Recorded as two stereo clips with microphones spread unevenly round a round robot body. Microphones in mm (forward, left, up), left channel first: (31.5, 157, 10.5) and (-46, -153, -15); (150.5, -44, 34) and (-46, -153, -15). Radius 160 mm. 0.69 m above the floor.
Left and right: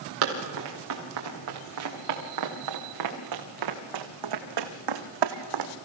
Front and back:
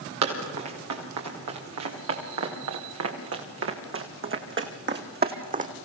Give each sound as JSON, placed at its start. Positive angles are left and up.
{"t": 0.2, "sound": "running footsteps", "azimuth_deg": -155, "distance_m": 5.5}